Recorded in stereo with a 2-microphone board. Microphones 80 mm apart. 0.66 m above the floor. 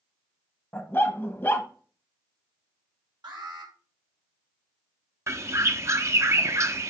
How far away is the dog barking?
About 1.2 m.